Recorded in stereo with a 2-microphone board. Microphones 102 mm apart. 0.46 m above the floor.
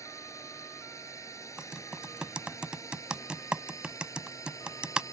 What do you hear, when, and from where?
0.0 s a drone: 30° left (ahead or behind)
1.6 s typing on a keyboard: 10° right (ahead or behind)